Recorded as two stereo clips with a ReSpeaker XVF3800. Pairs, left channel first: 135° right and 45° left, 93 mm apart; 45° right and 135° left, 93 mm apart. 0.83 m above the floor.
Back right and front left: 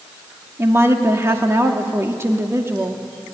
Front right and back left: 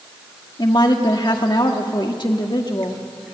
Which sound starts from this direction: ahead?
A woman speaking, at 0.6 s.